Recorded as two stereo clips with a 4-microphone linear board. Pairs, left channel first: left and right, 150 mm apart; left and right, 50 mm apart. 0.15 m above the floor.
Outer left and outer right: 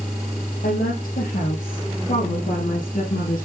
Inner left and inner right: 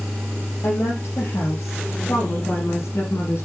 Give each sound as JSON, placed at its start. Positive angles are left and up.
{"t": 0.6, "sound": "a woman speaking", "side_deg": 65, "distance_m": 4.5}